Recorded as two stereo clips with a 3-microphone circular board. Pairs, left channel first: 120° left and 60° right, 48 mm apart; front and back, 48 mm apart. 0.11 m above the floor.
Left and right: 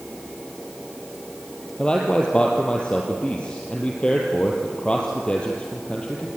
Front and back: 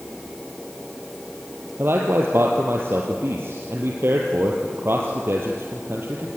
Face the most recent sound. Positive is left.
turn(degrees=-175)